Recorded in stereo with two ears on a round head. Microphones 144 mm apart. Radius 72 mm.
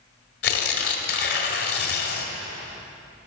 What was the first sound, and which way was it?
Tearing paper, 60° left (ahead or behind).